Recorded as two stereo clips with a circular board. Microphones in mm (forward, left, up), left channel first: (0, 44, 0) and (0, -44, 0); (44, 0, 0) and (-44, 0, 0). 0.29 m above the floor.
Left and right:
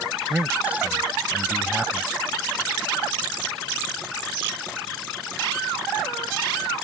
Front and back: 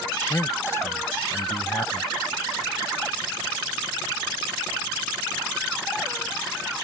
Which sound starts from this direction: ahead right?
A man speaking, at 0.3 s.